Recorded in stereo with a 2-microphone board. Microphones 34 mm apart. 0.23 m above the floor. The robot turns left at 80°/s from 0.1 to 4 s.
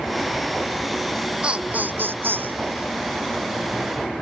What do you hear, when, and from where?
1.4 s laughter: 25° right; by 2.6 s 115° right